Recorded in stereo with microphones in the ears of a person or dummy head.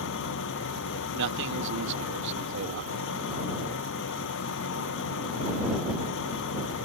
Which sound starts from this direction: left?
An engine running, at 0.0 s.